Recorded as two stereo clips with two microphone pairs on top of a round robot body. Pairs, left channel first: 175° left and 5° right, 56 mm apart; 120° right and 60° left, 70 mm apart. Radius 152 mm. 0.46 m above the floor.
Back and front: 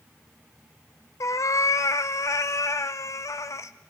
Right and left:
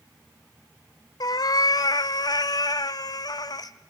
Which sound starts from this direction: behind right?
A cat meowing, at 1.2 s.